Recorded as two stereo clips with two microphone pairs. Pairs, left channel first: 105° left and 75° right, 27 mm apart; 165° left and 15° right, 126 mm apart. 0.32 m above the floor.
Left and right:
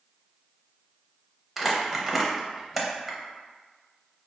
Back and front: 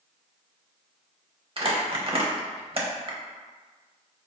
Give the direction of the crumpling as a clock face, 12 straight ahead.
12 o'clock.